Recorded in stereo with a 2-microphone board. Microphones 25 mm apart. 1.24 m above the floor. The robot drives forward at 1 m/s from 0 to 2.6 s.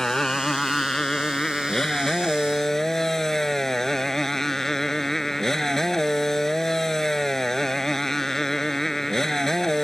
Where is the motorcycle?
20° left (ahead or behind); by 9.8 s 15° left (ahead or behind).